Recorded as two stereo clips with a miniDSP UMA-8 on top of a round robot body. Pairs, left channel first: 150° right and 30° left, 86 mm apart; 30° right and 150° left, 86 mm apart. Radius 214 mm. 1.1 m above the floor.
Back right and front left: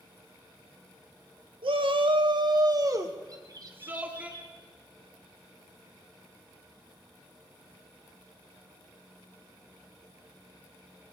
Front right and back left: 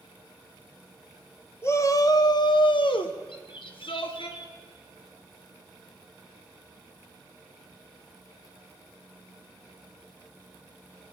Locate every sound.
1.6 s a shout: 30° left, 2 m; by 4.3 s 45° right, 3.5 m
3.3 s a bird: 10° right, 2.5 m